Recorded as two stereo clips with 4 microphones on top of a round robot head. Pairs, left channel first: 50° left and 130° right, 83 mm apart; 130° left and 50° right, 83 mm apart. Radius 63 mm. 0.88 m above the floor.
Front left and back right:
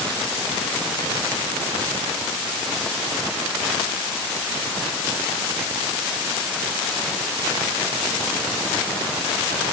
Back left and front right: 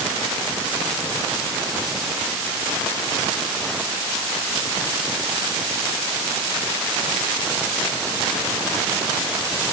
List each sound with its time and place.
Only background noise.